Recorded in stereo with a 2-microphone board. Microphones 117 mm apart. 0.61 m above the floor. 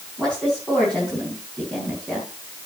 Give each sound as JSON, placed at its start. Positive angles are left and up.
{"t": 0.2, "sound": "a woman speaking", "side_deg": 5, "distance_m": 4.5}